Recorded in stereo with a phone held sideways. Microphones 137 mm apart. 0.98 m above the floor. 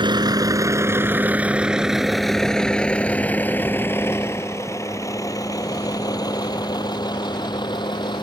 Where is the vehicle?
35° right (ahead or behind); by 8.2 s 35° left (ahead or behind).